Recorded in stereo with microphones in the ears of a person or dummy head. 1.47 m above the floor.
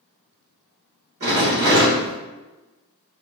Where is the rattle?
35° right (ahead or behind), 1.2 m.